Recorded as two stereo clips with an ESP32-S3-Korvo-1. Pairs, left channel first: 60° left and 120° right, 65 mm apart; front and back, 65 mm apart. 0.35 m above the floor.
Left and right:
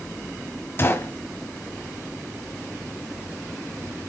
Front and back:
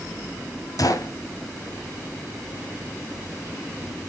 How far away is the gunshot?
About 1.3 m.